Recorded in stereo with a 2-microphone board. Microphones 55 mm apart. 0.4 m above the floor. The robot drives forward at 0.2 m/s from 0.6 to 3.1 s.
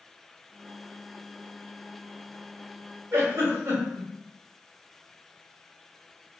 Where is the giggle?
55° right (ahead or behind), 0.9 m.